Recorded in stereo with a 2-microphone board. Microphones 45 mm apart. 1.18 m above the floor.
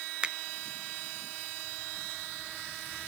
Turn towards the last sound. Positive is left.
turn(degrees=-20)  # may be behind; listen again after turning